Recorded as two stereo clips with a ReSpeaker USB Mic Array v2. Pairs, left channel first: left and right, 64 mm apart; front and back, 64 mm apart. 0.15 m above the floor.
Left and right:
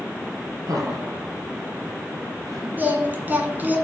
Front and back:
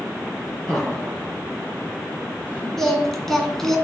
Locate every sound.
0.7 s laughter: 95° right, 3 m; by 2.7 s 120° right, 3.5 m
2.8 s singing: 75° right, 1.7 m